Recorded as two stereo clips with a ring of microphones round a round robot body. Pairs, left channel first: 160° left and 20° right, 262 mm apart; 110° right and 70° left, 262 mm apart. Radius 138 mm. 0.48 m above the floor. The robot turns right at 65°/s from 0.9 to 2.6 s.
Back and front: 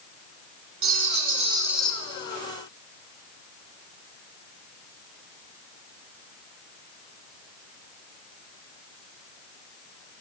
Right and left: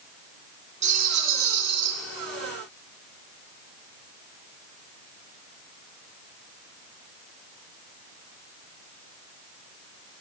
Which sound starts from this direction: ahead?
A rattle, at 0.8 s.